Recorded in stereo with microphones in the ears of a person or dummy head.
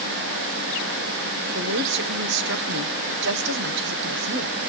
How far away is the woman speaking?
About 1.3 m.